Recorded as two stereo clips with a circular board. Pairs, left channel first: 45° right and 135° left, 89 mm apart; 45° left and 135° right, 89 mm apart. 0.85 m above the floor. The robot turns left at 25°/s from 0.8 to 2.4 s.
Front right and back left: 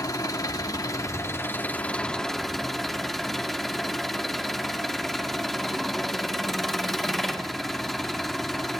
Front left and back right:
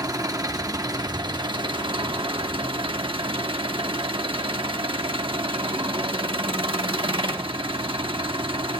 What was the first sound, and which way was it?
An engine running, 90° right.